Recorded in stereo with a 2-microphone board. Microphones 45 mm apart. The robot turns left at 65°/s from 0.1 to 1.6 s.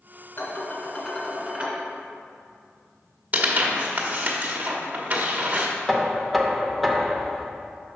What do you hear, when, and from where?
0.4 s dishes clattering: 60° left, 1.8 m; by 1.8 s 20° right, 1.8 m
3.3 s tearing paper: 35° right (ahead or behind), 1.0 m
5.9 s knocking: centre (ahead or behind), 0.7 m